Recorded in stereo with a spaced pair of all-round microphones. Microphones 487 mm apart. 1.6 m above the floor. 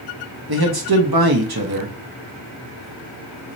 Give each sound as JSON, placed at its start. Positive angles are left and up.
{"t": 0.5, "sound": "a man speaking", "side_deg": -50, "distance_m": 1.1}